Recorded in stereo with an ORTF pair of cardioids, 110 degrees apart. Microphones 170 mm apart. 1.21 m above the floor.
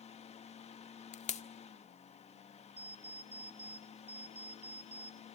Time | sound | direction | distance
0.0 | a fan | 40° left | 1.7 m
1.1 | a pop | 40° left | 1.6 m
2.8 | an alarm clock | 10° right | 4 m